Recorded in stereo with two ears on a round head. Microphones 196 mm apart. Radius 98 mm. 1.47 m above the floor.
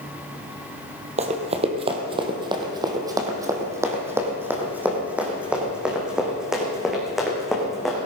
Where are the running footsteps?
30° right (ahead or behind), 1.9 m; by 8.0 s centre (ahead or behind), 4.5 m.